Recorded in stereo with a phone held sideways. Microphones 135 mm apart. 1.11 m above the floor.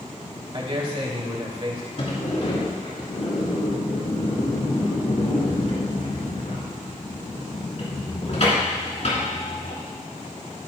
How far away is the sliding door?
About 3.5 m.